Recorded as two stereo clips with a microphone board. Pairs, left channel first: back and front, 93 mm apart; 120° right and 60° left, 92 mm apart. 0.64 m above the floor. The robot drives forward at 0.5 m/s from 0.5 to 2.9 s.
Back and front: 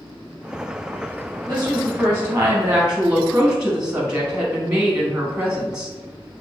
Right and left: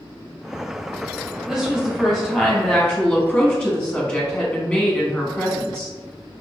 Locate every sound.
1.5 s a woman speaking: 25° right, 1.3 m; by 5.9 s 70° right, 0.9 m